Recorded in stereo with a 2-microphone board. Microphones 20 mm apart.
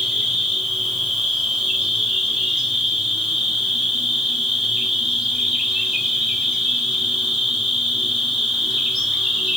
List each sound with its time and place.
0.0 s an insect: 50° right (ahead or behind), 1.4 m